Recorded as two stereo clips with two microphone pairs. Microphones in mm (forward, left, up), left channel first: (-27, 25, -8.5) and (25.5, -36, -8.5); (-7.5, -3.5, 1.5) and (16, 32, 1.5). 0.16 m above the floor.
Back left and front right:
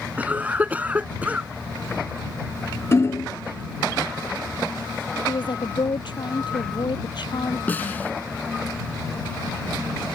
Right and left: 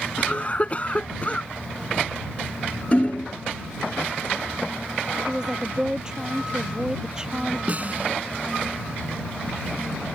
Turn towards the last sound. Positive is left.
turn(degrees=75)